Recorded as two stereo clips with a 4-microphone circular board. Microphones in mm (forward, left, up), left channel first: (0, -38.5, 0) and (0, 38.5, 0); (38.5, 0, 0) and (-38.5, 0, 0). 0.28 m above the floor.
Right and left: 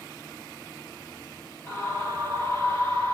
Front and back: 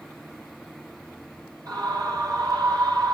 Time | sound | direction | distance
1.7 | a scream | 145° right | 8.5 m